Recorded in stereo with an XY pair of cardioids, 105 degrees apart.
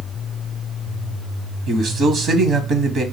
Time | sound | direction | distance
1.7 | a man speaking | 65° right | 0.9 m